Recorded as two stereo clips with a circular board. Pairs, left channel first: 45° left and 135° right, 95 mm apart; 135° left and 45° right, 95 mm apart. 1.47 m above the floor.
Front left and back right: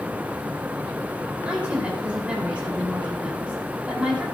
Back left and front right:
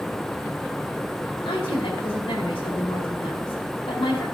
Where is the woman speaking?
150° left, 4.5 m.